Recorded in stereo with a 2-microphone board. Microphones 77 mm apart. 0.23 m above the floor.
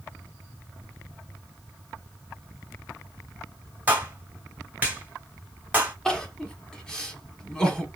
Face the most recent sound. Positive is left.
turn(degrees=10)  # may be behind; listen again after turning